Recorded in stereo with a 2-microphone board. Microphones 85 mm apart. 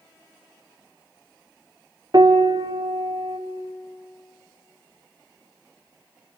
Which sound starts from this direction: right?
A piano, at 2.1 s.